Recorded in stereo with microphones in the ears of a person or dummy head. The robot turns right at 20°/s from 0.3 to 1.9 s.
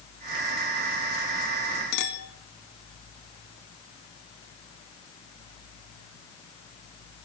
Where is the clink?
70° left (ahead or behind), 2 m.